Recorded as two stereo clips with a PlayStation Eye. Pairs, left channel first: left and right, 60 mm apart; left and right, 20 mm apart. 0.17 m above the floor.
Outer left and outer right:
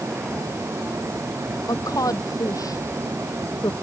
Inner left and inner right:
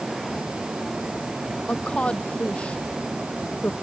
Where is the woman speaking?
75° left (ahead or behind); by 3.7 s 70° left (ahead or behind).